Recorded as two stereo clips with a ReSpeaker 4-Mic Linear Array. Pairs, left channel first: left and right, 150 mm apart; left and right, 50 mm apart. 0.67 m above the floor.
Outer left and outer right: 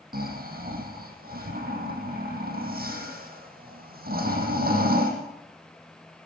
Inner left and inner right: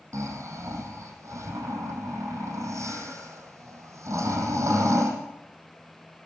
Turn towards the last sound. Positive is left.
turn(degrees=-75)  # may be behind; listen again after turning